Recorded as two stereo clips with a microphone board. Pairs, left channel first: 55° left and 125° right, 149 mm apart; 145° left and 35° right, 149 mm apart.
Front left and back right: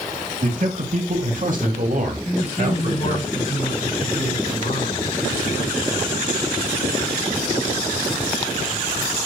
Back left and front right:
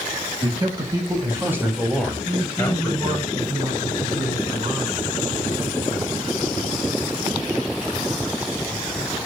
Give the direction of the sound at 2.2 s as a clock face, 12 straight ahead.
11 o'clock.